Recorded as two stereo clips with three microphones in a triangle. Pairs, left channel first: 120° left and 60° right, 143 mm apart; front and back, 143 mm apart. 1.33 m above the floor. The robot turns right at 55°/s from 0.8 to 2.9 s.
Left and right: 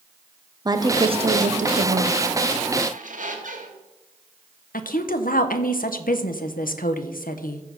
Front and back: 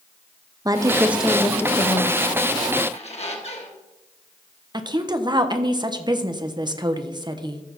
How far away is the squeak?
About 1.6 m.